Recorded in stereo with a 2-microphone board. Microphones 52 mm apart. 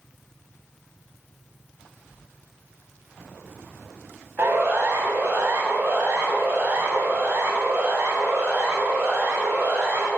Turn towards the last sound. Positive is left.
turn(degrees=-35)  # may be behind; listen again after turning